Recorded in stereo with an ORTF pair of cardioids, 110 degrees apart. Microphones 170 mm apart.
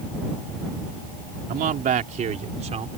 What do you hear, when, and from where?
1.5 s a man speaking: 60° right; by 3.0 s 40° right